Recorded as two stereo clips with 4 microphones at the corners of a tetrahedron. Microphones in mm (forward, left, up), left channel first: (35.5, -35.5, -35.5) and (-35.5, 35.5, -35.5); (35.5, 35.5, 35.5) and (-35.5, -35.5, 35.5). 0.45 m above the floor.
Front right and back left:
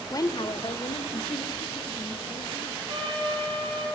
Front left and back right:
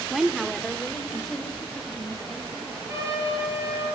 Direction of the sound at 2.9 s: 165° left.